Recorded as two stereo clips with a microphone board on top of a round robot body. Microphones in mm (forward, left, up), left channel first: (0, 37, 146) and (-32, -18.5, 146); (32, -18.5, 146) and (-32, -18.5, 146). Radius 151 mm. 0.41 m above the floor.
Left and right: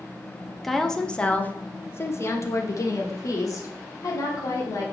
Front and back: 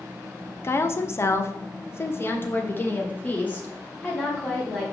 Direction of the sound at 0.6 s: 25° right.